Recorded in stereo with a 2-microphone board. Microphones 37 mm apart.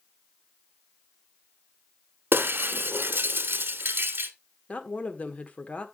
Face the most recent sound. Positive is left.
turn(degrees=40)  # may be behind; listen again after turning